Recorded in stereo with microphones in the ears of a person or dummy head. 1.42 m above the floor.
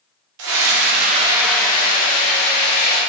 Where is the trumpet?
I don't hear a trumpet.